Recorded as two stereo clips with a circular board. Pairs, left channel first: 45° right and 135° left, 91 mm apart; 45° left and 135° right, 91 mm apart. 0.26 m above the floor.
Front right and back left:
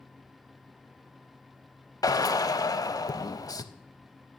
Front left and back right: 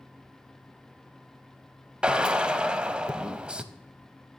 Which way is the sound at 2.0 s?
60° right.